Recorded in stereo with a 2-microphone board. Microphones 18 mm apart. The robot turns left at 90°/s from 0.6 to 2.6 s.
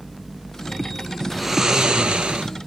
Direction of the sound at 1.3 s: Straight ahead.